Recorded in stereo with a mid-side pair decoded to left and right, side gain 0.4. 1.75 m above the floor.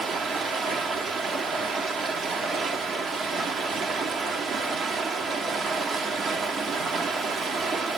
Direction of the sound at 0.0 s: 65° right.